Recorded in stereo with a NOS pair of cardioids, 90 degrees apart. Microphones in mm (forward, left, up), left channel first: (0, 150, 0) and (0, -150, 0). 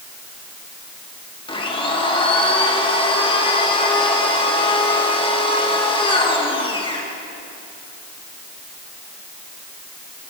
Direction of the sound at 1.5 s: 15° left.